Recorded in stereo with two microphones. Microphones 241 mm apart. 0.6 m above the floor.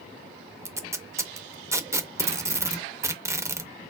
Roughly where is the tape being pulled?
Centre.